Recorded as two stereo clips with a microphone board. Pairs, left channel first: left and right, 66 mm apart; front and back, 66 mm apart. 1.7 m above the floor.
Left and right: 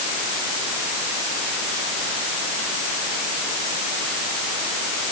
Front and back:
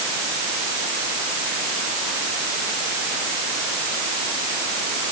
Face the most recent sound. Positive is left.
No sound to turn to.